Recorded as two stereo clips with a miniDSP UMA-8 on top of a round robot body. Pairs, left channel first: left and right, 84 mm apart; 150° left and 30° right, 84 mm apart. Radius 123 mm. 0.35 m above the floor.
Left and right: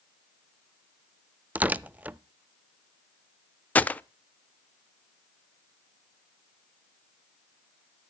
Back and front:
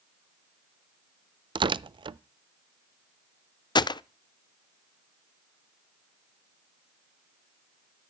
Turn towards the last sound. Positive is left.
turn(degrees=160)